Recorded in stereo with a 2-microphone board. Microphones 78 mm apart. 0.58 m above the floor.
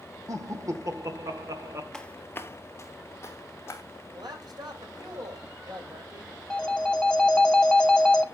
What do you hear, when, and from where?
0.3 s laughter: 50° right (ahead or behind), 1.3 m
1.9 s footsteps: 10° left (ahead or behind), 0.6 m; by 3.8 s 35° left (ahead or behind), 1.7 m
4.1 s a man speaking: 70° right (ahead or behind), 3 m
6.5 s a phone ringing: 10° left (ahead or behind), 0.7 m